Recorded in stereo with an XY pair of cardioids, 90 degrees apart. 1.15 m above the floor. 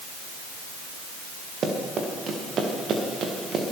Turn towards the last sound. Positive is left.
turn(degrees=-60)